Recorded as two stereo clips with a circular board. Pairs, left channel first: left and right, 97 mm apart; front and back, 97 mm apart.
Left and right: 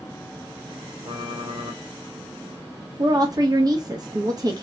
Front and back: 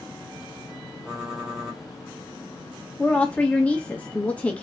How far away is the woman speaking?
About 0.9 m.